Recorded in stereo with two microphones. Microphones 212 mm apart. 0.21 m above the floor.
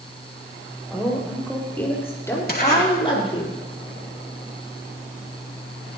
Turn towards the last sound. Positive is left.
turn(degrees=45)  # may be behind; listen again after turning